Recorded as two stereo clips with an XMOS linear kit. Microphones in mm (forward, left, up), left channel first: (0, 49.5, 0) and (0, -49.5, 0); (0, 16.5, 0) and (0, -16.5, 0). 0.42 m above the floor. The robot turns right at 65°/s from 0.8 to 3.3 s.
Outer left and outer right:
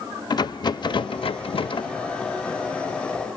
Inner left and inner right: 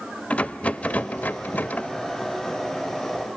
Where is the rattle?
50° left, 0.5 m; by 1.9 s 125° left, 0.5 m.